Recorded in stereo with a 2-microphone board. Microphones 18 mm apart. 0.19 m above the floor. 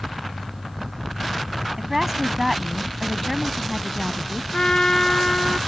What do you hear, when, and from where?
1.8 s a woman speaking: 30° right (ahead or behind); by 4.4 s 25° left (ahead or behind)
4.5 s a trumpet: 50° left (ahead or behind)